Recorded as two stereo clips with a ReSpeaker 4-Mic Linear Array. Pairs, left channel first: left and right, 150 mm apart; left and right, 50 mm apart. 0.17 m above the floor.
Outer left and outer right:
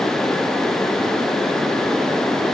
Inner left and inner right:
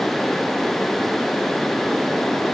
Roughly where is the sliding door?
No sliding door in this recording.